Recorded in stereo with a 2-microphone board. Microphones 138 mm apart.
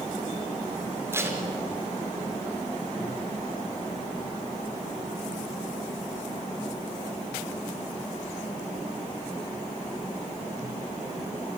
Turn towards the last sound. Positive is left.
turn(degrees=-20)  # may be behind; listen again after turning